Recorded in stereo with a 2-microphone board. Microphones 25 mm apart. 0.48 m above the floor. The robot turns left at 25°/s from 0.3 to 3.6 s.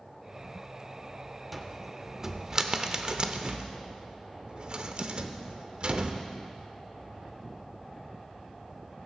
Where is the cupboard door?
5° right (ahead or behind), 0.7 m; by 6.2 s 45° right (ahead or behind), 0.7 m.